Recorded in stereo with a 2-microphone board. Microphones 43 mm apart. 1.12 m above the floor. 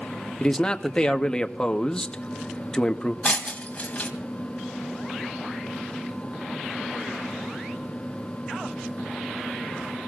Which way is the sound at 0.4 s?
20° left (ahead or behind).